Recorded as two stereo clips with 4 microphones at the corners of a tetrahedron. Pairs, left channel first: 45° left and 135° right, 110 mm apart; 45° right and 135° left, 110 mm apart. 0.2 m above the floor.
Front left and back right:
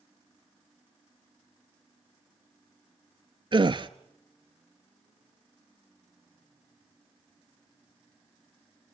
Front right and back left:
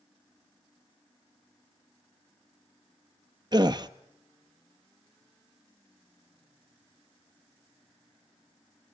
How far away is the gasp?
About 0.6 m.